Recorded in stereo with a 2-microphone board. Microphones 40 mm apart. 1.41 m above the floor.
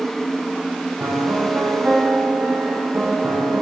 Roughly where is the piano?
Right.